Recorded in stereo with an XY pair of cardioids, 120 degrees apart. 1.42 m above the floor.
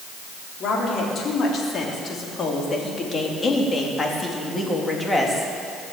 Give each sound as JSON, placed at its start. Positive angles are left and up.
{"t": 0.6, "sound": "a woman speaking", "azimuth_deg": 55, "distance_m": 4.0}